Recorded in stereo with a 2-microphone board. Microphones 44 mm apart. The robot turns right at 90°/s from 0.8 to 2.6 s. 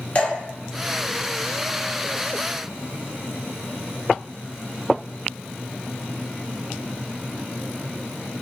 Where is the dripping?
30° left (ahead or behind), 1.5 m.